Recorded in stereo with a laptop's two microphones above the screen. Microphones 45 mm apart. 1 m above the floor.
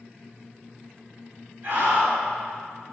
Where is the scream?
40° right (ahead or behind), 1.8 m.